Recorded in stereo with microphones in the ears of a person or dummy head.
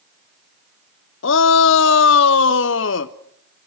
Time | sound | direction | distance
1.2 | a shout | 55° left (ahead or behind) | 0.7 m